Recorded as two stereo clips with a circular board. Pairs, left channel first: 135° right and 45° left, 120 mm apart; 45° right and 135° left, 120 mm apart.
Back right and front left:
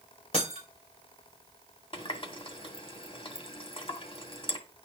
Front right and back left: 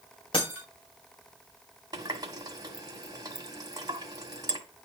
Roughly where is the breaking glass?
Right.